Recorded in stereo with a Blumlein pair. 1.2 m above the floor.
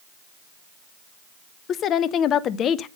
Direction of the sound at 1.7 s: 30° left.